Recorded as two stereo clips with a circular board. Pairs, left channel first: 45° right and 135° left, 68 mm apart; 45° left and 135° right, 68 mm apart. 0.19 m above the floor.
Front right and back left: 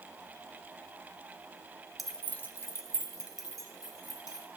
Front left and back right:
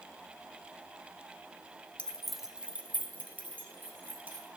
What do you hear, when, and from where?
2.0 s keys jangling: 50° left, 0.7 m; by 4.5 s 75° right, 3 m